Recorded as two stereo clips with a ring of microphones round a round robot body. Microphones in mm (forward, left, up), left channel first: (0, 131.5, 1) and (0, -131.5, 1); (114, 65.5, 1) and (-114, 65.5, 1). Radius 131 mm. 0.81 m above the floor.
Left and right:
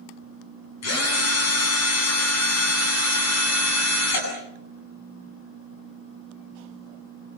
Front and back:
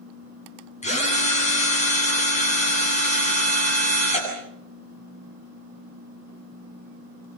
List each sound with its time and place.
0.8 s a drill: 60° left, 9 m